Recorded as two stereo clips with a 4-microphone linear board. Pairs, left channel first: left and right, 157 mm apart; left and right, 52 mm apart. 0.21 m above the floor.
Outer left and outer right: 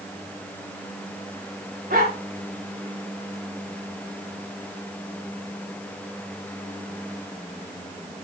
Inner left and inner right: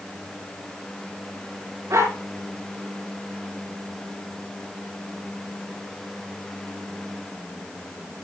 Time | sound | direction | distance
1.9 | a dog barking | 75° right (ahead or behind) | 9.5 m